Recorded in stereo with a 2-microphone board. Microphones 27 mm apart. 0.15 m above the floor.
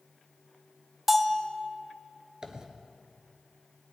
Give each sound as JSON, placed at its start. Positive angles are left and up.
{"t": 1.1, "sound": "a bell", "side_deg": -5, "distance_m": 0.8}
{"t": 2.4, "sound": "a dropped coin", "side_deg": -30, "distance_m": 1.2}